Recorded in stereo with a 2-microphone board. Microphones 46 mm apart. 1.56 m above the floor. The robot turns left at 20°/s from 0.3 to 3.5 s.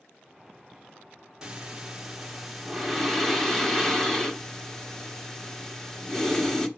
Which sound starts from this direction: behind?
Breathing, at 1.4 s.